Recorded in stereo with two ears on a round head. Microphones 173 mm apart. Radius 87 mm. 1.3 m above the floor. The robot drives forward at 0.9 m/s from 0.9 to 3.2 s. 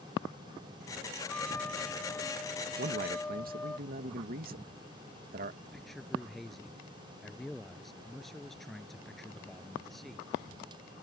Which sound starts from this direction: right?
A man speaking, at 2.8 s.